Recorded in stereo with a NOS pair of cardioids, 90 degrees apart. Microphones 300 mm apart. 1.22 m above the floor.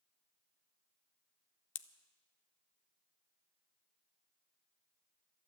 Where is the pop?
45° left, 0.6 m.